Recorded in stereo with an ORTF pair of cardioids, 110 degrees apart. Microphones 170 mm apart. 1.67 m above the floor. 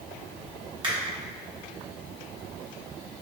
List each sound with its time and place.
0.8 s a finger snap: 30° right, 1.3 m